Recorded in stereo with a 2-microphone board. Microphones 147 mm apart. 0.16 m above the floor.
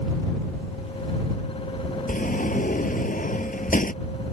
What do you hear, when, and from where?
2.1 s a sliding door: 65° left (ahead or behind)